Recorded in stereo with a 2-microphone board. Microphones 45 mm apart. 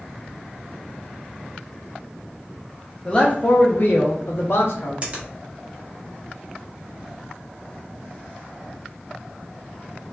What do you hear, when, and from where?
3.0 s a man speaking: 15° left (ahead or behind), 0.5 m; by 4.9 s 65° left (ahead or behind), 1.1 m
5.0 s a finger snap: 35° right (ahead or behind), 0.9 m